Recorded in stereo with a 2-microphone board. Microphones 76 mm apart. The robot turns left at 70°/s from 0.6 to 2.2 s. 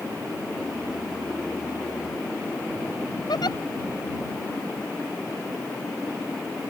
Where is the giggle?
80° left.